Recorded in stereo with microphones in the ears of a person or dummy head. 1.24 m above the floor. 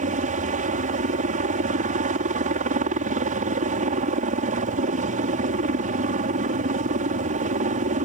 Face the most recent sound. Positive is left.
turn(degrees=-40)  # may be behind; listen again after turning